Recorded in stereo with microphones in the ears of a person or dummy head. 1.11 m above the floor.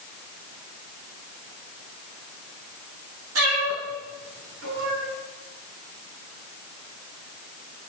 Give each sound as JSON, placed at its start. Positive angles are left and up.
{"t": 3.4, "sound": "a cat meowing", "side_deg": -80, "distance_m": 5.5}